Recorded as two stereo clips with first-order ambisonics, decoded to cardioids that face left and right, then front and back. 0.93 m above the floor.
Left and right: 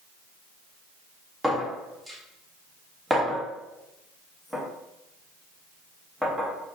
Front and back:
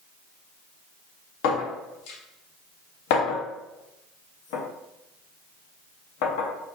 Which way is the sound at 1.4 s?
5° right.